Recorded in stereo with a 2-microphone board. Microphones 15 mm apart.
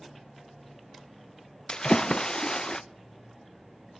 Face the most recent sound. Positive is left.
turn(degrees=55)  # may be behind; listen again after turning